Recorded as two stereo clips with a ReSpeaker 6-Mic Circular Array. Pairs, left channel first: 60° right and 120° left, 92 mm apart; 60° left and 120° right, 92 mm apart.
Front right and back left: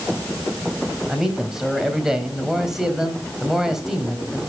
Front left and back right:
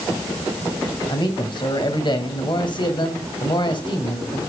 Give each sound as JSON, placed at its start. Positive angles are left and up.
{"t": 1.1, "sound": "a man speaking", "azimuth_deg": 35, "distance_m": 2.5}